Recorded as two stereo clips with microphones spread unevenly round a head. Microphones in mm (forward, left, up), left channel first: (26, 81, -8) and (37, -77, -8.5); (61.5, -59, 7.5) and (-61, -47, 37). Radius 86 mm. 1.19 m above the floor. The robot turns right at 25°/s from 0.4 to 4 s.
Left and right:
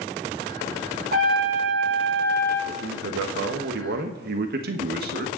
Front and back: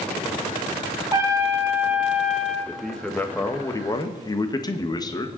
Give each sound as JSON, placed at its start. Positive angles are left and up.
{"t": 1.1, "sound": "a trumpet", "azimuth_deg": -130, "distance_m": 4.0}
{"t": 2.7, "sound": "a man speaking", "azimuth_deg": -95, "distance_m": 1.3}